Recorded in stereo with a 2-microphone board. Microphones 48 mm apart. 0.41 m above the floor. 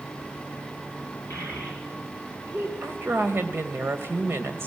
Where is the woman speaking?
55° right (ahead or behind), 2 m.